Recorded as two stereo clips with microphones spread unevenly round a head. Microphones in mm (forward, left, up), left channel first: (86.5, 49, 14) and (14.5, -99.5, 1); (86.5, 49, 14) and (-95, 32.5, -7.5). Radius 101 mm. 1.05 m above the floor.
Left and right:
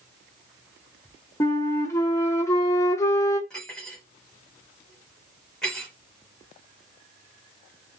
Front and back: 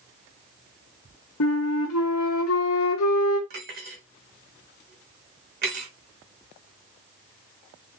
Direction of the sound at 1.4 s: 10° right.